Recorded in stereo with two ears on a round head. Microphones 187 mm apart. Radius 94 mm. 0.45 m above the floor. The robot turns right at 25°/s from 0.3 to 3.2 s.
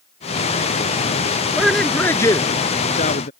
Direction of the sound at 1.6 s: 5° right.